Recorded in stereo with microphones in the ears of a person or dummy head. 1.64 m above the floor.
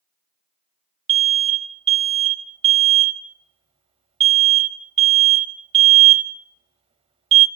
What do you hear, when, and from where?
1.1 s an alarm: 30° right (ahead or behind), 0.8 m